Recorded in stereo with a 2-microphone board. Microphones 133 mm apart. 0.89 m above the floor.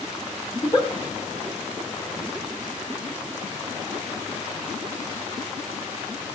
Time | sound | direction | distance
0.5 | a giggle | 35° left (ahead or behind) | 1.5 m